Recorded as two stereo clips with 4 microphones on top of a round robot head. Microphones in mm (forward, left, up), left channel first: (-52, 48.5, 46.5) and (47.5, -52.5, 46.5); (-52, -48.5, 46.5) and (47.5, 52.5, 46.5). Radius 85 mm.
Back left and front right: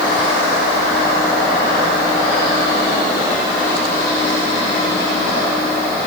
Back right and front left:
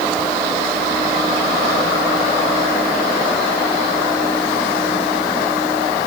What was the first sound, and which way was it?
Only background noise.